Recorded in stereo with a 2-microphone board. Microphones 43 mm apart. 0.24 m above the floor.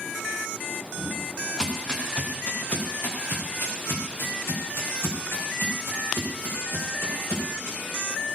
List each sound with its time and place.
1.0 s footsteps: 10° left (ahead or behind), 4 m; by 7.8 s 75° left (ahead or behind), 8 m